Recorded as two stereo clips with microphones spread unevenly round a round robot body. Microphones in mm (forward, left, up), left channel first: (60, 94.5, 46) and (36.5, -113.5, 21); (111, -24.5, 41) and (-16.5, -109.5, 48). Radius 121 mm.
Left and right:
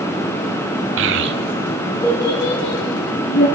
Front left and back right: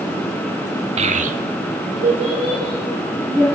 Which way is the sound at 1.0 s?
100° right.